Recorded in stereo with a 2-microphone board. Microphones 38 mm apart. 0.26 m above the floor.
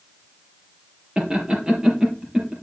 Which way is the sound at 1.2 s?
20° right (ahead or behind).